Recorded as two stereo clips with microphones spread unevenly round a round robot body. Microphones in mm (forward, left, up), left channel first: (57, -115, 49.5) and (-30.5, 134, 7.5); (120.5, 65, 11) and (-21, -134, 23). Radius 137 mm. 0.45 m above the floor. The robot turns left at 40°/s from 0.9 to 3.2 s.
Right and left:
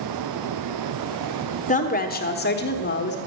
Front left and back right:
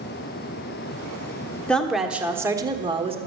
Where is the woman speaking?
20° right, 1.1 m; by 3.2 s 80° right, 1.1 m.